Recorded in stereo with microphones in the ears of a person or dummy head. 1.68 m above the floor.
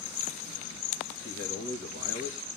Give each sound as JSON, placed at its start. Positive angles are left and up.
{"t": 1.2, "sound": "a man speaking", "side_deg": -50, "distance_m": 2.5}